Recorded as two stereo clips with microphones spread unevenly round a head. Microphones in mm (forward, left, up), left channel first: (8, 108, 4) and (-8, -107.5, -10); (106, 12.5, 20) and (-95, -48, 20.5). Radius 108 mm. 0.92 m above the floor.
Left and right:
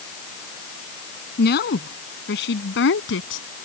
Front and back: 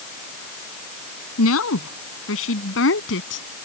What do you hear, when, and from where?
1.4 s a woman speaking: 40° left; by 3.5 s 55° left